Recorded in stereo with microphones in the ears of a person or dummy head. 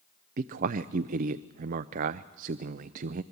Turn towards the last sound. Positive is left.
turn(degrees=-45)  # may be behind; listen again after turning